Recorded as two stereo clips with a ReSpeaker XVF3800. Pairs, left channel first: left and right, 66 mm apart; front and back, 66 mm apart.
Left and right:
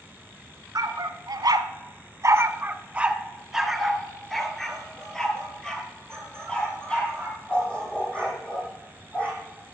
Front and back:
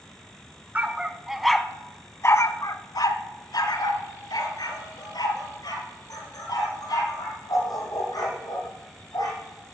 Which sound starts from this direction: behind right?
A dog barking, at 0.8 s.